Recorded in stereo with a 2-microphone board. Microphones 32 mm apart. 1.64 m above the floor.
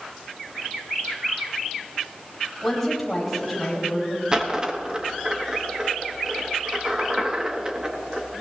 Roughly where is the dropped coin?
Right.